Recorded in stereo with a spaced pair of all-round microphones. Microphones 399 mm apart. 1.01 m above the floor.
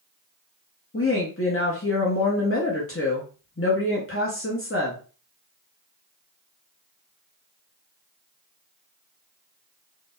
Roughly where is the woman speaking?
Left.